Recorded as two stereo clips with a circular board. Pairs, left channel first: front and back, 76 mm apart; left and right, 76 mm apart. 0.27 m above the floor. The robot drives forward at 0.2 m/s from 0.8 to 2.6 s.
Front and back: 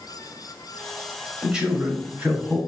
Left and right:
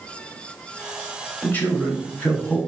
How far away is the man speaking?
About 1.0 m.